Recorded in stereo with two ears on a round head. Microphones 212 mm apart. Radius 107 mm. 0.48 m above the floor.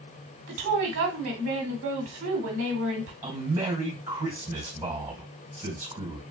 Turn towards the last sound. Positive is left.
turn(degrees=-10)  # may be behind; listen again after turning